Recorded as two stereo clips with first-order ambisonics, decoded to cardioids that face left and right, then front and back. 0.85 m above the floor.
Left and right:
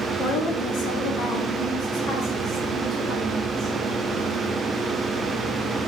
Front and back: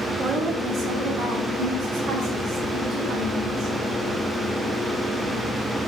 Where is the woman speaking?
115° left, 1.4 m; by 3.8 s 145° left, 3 m.